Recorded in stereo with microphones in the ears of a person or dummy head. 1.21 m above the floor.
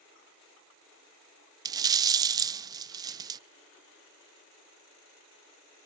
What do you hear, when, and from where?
1.6 s a rattle: 20° right (ahead or behind), 0.5 m